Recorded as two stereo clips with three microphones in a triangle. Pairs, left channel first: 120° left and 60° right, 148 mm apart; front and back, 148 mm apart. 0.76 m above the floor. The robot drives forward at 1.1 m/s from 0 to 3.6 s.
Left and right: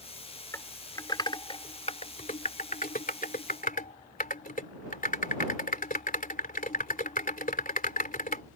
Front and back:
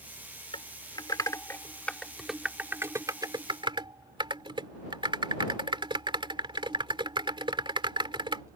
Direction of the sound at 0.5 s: 50° left.